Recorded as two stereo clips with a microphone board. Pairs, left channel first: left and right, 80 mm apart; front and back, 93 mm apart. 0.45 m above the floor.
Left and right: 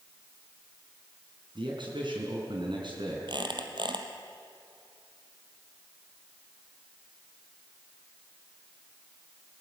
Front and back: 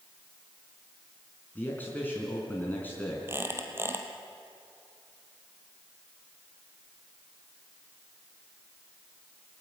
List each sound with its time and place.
1.6 s a man speaking: 70° right, 4.5 m
3.3 s a squeak: 115° right, 2.5 m